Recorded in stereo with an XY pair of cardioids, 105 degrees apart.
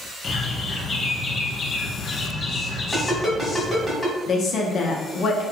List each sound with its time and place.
0.2 s a bird: 40° left, 0.5 m
2.9 s a ringtone: 15° left, 1.7 m
4.3 s a woman speaking: 60° left, 0.7 m